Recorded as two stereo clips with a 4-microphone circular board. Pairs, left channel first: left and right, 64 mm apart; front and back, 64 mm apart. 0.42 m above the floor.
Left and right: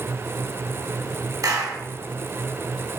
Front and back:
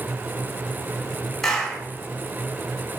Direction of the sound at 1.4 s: 80° right.